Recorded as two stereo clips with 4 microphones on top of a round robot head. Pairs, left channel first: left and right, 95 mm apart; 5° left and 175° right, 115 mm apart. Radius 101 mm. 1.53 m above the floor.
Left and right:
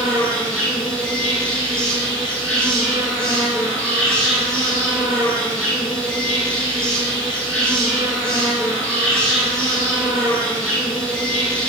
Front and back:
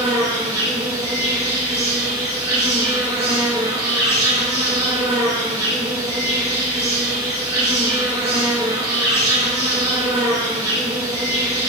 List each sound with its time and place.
0.0 s an insect: 145° left, 1.8 m